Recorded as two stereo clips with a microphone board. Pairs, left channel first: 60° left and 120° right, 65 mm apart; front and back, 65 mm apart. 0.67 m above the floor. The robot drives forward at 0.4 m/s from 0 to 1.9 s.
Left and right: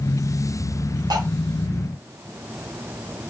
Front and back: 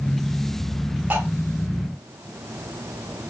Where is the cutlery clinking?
115° right, 1.0 m; by 1.2 s 120° right, 1.0 m.